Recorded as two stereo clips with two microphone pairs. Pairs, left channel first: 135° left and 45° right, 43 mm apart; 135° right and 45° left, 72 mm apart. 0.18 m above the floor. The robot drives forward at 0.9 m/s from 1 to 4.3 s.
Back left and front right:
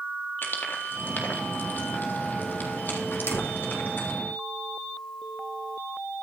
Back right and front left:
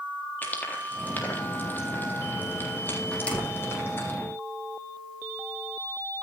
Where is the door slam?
155° left, 4.5 m.